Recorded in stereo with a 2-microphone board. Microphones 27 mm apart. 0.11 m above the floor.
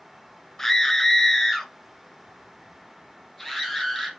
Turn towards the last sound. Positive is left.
turn(degrees=5)  # may be behind; listen again after turning